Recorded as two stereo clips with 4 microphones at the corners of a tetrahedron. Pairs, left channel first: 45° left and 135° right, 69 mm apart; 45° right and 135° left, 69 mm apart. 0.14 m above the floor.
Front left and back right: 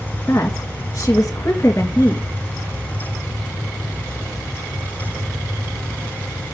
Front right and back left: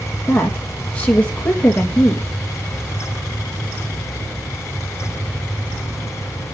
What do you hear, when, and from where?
0.3 s a woman speaking: 20° left, 2.5 m